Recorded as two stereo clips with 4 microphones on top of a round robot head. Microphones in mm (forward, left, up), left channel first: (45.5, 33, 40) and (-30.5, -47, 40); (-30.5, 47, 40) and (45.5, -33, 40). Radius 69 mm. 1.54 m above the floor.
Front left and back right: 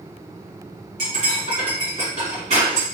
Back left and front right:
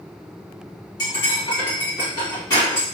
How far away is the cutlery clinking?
About 1.4 m.